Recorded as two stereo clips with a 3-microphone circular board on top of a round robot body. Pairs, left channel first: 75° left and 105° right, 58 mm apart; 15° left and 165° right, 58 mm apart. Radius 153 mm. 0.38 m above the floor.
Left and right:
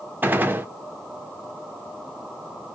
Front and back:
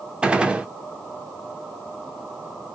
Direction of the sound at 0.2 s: 110° right.